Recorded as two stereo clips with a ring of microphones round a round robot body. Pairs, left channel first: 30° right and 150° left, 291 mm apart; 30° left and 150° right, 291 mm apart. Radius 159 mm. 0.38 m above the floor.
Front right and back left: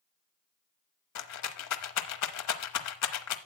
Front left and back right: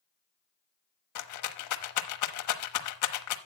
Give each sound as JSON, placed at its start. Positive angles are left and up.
{"t": 1.1, "sound": "a rattle", "azimuth_deg": 5, "distance_m": 1.0}